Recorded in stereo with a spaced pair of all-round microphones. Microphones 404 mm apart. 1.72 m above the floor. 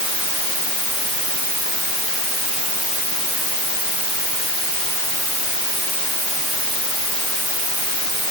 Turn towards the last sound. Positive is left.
No sound to turn to.